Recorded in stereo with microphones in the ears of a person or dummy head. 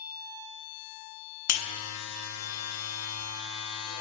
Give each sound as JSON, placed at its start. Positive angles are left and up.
{"t": 1.5, "sound": "a buzzer", "side_deg": 80, "distance_m": 0.6}